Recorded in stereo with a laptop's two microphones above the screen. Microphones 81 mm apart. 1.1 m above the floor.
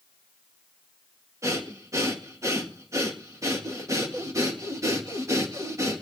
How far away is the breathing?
About 1.8 m.